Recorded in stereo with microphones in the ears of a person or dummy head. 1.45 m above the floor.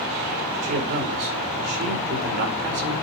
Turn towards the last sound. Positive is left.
turn(degrees=-40)  # may be behind; listen again after turning